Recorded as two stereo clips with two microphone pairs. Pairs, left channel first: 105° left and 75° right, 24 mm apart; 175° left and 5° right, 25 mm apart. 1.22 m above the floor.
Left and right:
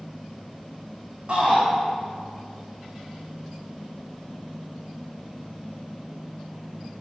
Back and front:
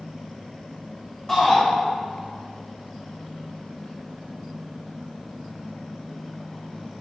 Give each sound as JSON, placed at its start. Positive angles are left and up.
{"t": 1.3, "sound": "a shout", "azimuth_deg": -120, "distance_m": 3.5}